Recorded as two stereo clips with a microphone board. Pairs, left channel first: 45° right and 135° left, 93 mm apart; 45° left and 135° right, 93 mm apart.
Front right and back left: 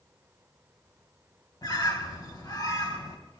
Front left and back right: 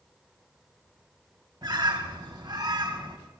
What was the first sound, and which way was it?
A bird, 90° right.